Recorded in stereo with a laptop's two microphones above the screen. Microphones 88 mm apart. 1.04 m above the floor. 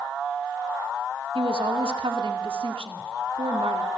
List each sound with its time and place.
1.4 s a woman speaking: 85° right, 2 m